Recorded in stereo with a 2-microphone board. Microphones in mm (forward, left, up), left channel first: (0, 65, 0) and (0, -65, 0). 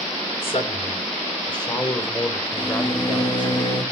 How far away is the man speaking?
About 2.5 m.